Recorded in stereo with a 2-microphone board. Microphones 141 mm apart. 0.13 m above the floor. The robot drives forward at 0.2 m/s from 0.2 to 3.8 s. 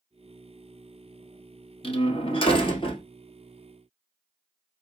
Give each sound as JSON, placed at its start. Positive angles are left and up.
{"t": 1.8, "sound": "a door slam", "side_deg": 40, "distance_m": 1.5}